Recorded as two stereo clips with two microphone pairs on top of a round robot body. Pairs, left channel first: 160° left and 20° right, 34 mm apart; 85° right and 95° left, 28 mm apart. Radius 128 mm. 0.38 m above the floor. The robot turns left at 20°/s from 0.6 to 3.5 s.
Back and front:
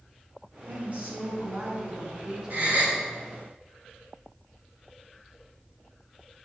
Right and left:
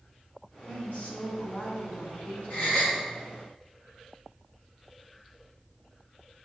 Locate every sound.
0.7 s a woman speaking: 50° right, 5 m; by 2.8 s 95° right, 5 m
2.5 s a gasp: 55° right, 5.5 m; by 3.0 s 60° right, 5.5 m